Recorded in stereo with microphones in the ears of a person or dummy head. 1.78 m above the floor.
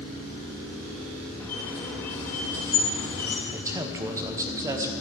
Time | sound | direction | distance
1.4 | a squeak | 10° left (ahead or behind) | 1.9 m
3.5 | a man speaking | 20° right (ahead or behind) | 0.9 m